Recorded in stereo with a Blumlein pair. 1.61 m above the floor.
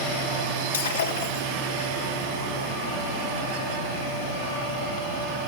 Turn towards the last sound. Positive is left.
turn(degrees=65)